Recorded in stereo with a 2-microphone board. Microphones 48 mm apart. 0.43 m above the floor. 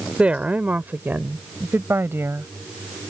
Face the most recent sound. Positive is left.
turn(degrees=-65)  # may be behind; listen again after turning